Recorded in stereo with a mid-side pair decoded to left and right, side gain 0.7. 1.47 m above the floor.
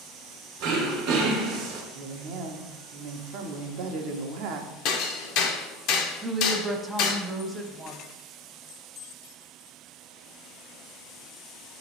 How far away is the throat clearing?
About 0.9 m.